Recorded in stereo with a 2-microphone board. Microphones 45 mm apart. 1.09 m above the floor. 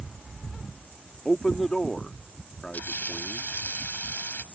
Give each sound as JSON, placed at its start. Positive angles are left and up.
{"t": 1.2, "sound": "a man speaking", "side_deg": 10}
{"t": 2.7, "sound": "frying", "side_deg": 40}